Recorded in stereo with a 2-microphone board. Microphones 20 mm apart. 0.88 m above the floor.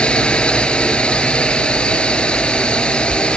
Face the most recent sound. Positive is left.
turn(degrees=70)  # may be behind; listen again after turning